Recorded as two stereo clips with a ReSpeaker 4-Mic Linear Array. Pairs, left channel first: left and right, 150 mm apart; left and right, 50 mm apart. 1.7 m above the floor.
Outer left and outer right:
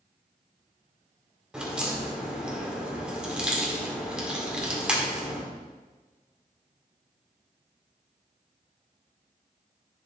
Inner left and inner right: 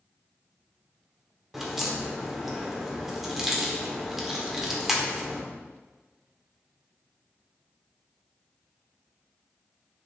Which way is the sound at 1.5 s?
5° right (ahead or behind).